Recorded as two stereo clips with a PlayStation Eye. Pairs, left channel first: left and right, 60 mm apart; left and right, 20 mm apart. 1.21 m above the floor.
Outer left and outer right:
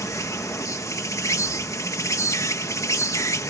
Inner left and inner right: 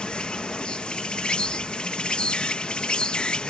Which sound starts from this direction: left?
An insect, at 0.0 s.